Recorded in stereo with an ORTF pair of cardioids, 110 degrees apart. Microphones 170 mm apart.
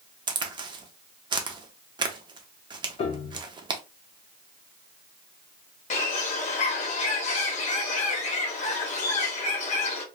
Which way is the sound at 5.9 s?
45° left.